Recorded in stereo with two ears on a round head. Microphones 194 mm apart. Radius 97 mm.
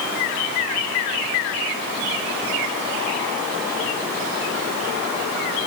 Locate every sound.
Only background noise.